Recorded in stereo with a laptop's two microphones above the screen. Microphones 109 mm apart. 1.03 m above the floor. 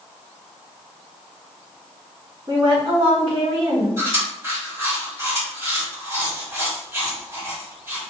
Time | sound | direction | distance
2.5 | a woman speaking | 35° right (ahead or behind) | 1.3 m
4.0 | chewing | 20° right (ahead or behind) | 1.8 m